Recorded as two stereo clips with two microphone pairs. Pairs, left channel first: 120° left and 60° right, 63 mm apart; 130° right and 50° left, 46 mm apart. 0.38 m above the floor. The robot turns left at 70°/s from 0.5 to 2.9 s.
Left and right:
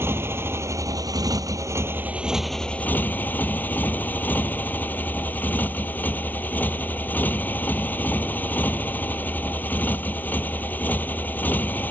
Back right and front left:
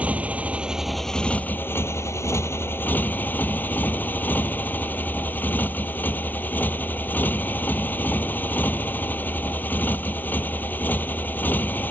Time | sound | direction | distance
0.0 | a motorcycle | 15° right | ?